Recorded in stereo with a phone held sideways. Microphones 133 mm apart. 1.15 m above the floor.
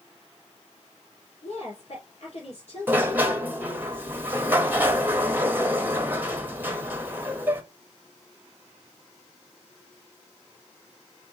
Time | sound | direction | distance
1.4 | a woman speaking | 60° left (ahead or behind) | 2.5 m
2.9 | a sliding door | 15° right (ahead or behind) | 0.8 m